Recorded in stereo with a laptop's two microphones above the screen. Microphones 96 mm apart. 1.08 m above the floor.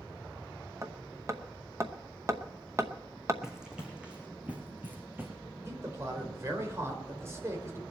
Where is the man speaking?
30° right (ahead or behind), 5 m.